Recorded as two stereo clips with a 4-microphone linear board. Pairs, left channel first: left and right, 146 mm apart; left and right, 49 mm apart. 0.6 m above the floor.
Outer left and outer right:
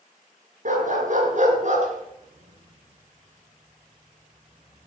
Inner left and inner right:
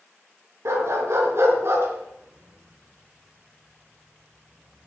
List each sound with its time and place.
0.7 s a dog barking: 60° right (ahead or behind), 4 m; by 4.9 s 30° right (ahead or behind), 2 m